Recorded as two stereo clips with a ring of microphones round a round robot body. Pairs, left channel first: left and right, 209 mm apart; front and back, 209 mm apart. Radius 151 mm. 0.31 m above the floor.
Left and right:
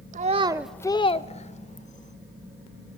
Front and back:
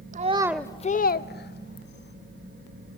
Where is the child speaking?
135° right, 0.8 m; by 2.1 s 35° left, 2 m.